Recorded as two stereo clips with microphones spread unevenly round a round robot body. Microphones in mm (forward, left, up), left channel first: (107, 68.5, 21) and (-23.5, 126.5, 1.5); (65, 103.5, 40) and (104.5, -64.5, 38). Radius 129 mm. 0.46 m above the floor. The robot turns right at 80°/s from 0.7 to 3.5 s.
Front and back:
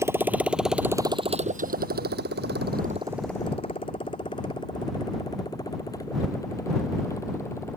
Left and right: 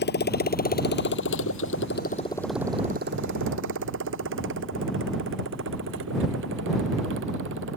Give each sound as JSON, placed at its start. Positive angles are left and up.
{"t": 0.0, "sound": "a motorcycle", "azimuth_deg": 85}